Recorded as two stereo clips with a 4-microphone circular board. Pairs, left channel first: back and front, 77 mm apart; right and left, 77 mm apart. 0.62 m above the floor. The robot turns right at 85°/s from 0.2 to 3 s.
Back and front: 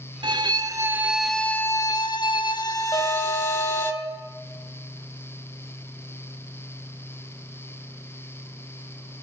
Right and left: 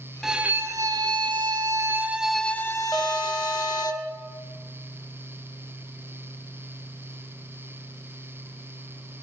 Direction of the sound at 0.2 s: Straight ahead.